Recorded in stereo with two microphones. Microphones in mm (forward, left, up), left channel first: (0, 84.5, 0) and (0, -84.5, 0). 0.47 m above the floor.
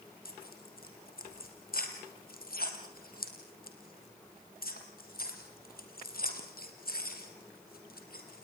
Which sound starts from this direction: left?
Tearing paper, at 0.2 s.